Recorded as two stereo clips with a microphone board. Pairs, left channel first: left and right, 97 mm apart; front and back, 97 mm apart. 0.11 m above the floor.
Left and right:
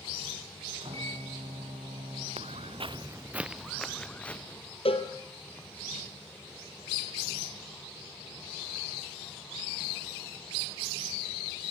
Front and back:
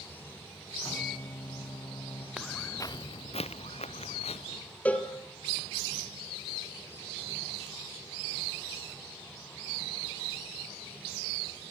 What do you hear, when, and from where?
0.8 s a microwave: 70° right, 6.5 m
2.4 s footsteps: 95° right, 0.6 m; by 4.6 s 15° left, 1.7 m
4.8 s a cowbell: 75° left, 2.5 m